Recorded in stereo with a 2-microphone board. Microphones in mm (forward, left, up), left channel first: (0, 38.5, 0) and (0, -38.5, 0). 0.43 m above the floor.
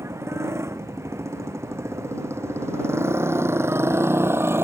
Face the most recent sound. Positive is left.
turn(degrees=-30)  # may be behind; listen again after turning